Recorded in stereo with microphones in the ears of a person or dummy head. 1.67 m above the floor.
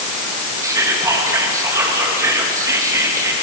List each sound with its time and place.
0.6 s whispering: 20° right (ahead or behind), 3 m